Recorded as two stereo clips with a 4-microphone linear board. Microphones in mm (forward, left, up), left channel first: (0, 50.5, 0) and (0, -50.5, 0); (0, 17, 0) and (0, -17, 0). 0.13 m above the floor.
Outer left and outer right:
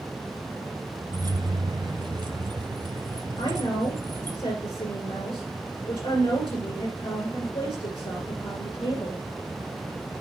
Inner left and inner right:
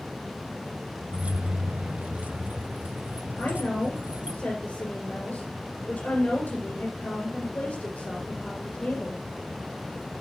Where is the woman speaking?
60° left (ahead or behind), 3 m.